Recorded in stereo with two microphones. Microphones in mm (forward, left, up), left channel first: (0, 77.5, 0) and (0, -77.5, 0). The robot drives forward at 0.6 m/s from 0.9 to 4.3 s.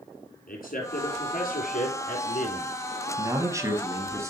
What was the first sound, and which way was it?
A man speaking, 65° left (ahead or behind).